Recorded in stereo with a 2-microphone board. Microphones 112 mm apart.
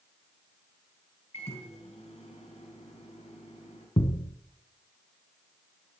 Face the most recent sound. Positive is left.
turn(degrees=55)  # may be behind; listen again after turning